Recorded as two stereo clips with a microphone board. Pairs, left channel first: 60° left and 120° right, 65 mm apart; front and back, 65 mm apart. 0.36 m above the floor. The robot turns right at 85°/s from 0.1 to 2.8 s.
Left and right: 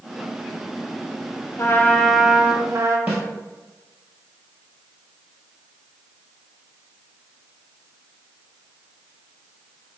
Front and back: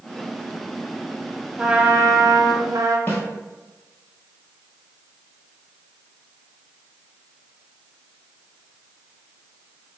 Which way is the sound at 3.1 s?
55° right.